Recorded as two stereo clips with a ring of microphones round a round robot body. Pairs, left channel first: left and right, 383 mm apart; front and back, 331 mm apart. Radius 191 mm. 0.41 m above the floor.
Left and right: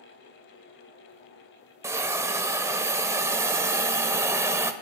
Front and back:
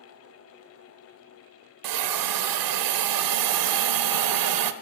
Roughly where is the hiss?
Behind.